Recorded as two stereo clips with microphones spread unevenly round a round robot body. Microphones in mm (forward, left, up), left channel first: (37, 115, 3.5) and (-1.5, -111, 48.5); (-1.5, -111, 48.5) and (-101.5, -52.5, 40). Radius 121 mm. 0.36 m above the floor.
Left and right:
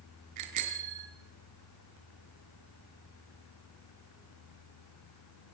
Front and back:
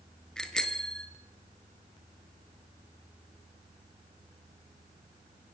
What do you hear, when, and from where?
0.4 s a bicycle bell: 115° right, 4.5 m